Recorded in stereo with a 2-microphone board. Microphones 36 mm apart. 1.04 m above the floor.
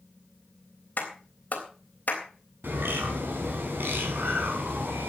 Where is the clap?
50° left (ahead or behind), 3.5 m.